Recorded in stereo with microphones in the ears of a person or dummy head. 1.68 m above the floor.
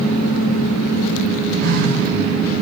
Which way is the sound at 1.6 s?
60° right (ahead or behind).